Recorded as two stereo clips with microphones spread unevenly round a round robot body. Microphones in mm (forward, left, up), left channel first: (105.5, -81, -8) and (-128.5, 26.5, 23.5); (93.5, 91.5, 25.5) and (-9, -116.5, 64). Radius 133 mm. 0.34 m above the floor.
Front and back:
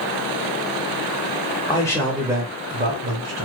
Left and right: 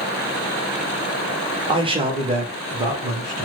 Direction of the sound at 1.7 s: 50° right.